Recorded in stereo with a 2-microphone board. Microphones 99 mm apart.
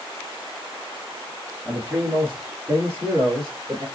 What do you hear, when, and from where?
1.6 s a man speaking: 15° right (ahead or behind), 2.5 m; by 3.9 s 40° right (ahead or behind), 2 m